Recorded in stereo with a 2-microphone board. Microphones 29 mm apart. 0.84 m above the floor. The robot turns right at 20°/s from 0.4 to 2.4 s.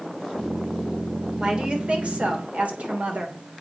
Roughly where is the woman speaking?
Right.